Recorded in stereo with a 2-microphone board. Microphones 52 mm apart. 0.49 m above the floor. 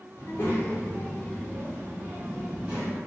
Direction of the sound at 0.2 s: 45° left (ahead or behind).